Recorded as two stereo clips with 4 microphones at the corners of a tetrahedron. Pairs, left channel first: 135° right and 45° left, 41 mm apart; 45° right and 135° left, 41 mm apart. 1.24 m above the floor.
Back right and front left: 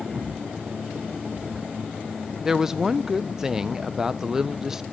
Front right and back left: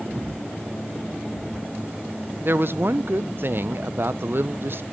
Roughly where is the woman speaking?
Behind left.